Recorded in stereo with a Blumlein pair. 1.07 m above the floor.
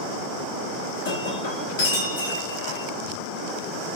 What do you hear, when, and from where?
1.1 s breaking glass: 60° left, 1.3 m